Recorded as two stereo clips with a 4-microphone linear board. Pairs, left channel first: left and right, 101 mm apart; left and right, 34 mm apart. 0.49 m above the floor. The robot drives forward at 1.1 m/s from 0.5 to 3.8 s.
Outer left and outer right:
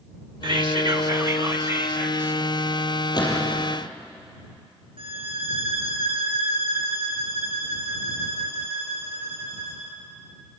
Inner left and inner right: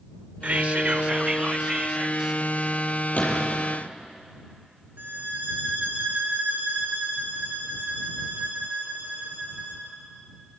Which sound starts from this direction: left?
A gunshot, at 3.1 s.